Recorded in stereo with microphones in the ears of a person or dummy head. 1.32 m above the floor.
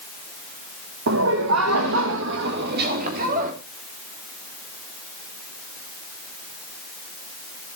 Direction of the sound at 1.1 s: 65° right (ahead or behind).